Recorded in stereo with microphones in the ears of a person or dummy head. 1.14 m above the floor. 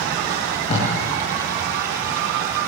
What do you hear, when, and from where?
0.3 s tape being pulled: 40° left (ahead or behind), 8.5 m